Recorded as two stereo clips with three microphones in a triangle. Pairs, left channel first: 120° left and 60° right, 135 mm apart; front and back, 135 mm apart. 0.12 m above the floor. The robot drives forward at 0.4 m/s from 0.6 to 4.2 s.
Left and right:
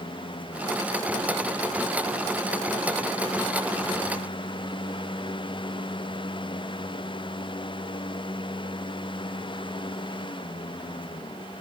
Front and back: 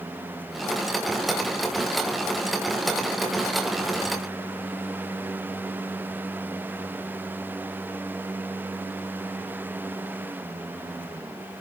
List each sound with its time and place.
Only background noise.